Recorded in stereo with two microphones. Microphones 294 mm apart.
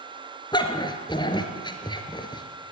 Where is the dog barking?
15° left (ahead or behind), 2 m.